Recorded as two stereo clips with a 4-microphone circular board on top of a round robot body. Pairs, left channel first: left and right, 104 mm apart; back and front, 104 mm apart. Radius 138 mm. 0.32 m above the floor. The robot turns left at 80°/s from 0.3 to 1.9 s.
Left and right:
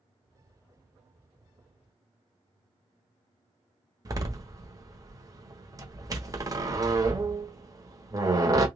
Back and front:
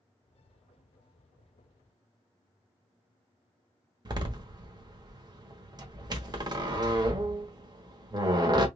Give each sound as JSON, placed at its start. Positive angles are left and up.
{"t": 4.0, "sound": "a door slam", "azimuth_deg": -40, "distance_m": 1.3}